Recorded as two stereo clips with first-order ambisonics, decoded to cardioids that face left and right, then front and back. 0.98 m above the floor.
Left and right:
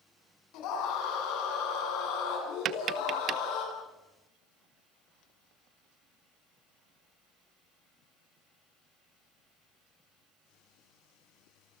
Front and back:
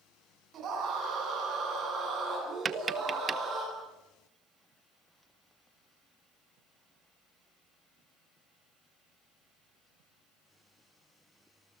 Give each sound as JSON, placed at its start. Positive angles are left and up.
{"t": 0.5, "sound": "a scream", "azimuth_deg": 125, "distance_m": 9.5}
{"t": 2.6, "sound": "tapping", "azimuth_deg": -120, "distance_m": 0.9}